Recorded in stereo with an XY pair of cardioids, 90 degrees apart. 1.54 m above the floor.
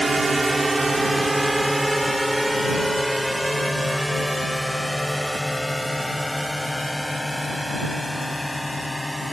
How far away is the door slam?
I don't hear a door slam.